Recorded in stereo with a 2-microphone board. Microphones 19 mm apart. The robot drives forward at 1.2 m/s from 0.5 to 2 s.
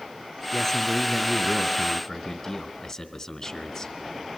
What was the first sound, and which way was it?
A man speaking, 10° left (ahead or behind).